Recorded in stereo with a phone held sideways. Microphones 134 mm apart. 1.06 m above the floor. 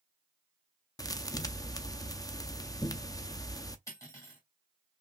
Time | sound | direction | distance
1.0 | a thud | 25° left (ahead or behind) | 0.6 m
3.9 | cutlery clinking | 20° left (ahead or behind) | 2.5 m